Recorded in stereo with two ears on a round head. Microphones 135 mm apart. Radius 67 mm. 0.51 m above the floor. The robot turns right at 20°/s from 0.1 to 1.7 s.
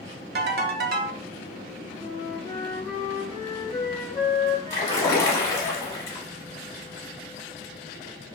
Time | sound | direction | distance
0.3 | a ringtone | 75° right (ahead or behind) | 0.5 m
2.0 | a flute | 20° left (ahead or behind) | 1.3 m
4.7 | a splash | 20° left (ahead or behind) | 0.8 m